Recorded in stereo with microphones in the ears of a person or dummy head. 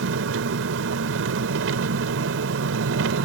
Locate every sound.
0.0 s an engine running: 80° right